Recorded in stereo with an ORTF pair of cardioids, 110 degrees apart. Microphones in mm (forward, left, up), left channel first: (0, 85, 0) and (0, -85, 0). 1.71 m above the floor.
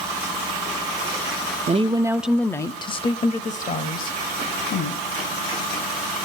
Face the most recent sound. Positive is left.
turn(degrees=60)